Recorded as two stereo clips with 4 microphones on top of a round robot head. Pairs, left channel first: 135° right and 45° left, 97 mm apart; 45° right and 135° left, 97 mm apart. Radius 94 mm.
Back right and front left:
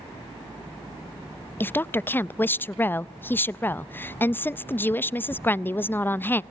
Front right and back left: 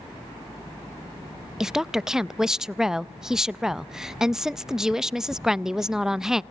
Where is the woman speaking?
150° right, 0.5 m.